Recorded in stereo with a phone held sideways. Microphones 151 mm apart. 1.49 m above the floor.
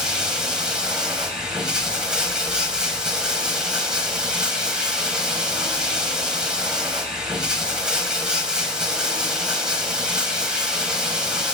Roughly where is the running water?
Centre.